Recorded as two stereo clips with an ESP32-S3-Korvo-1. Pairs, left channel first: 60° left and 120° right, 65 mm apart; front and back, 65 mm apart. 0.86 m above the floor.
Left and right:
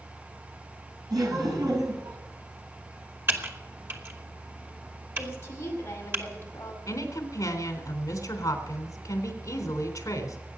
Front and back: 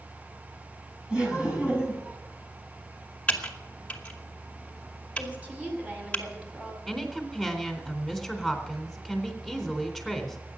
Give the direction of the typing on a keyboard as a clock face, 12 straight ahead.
2 o'clock.